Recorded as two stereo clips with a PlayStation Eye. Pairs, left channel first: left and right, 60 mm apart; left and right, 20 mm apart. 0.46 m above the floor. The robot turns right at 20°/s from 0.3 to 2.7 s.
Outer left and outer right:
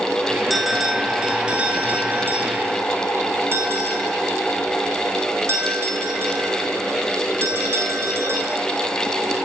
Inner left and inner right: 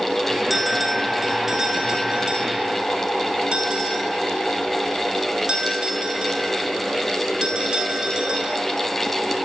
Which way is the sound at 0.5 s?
Centre (ahead or behind).